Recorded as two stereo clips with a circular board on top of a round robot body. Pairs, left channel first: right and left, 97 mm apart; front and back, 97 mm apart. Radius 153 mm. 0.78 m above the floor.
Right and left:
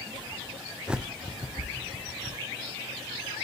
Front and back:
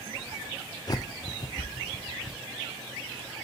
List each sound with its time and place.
0.9 s a bird: 15° left, 0.5 m